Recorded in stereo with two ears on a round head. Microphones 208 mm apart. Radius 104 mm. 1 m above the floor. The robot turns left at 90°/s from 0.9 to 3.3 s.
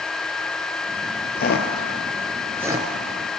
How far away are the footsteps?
About 1.5 m.